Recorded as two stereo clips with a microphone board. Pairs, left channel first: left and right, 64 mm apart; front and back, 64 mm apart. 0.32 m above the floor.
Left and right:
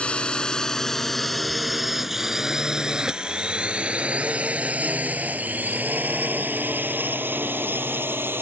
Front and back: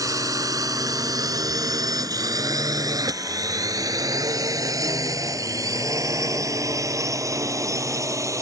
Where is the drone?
160° left; by 8.4 s 145° right.